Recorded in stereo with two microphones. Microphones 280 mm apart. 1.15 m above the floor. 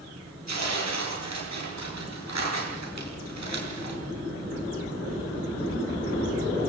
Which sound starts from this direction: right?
Tearing paper, at 0.5 s.